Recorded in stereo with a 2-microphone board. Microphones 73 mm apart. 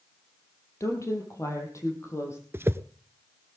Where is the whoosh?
35° right (ahead or behind), 0.6 m.